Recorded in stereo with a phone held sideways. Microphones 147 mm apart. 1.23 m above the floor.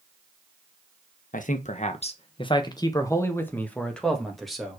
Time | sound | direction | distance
1.3 | a man speaking | 65° left (ahead or behind) | 1.2 m